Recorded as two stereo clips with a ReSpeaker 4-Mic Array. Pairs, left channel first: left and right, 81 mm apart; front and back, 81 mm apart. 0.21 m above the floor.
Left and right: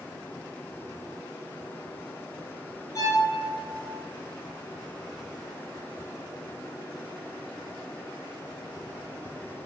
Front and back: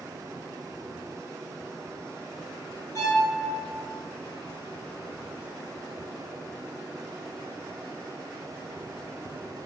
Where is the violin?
45° left, 0.6 m.